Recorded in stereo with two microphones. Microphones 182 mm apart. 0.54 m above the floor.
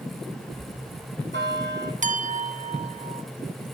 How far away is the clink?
About 0.6 m.